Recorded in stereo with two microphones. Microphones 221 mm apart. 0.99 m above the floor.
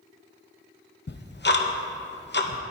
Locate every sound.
1.1 s ticking: 50° left (ahead or behind), 0.8 m